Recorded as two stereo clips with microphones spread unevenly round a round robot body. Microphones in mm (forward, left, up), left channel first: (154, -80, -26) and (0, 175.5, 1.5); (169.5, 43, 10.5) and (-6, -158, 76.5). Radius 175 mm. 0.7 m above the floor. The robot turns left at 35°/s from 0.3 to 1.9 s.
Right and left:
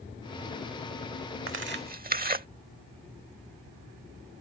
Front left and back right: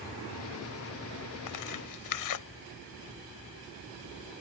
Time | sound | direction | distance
1.5 | tearing paper | 75° left | ?